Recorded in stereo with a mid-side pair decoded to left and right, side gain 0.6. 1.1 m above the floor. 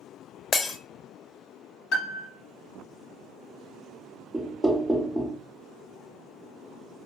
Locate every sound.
0.5 s breaking glass: 35° left, 0.8 m
1.9 s a piano: 65° left, 1.1 m
4.3 s knocking: 10° right, 0.6 m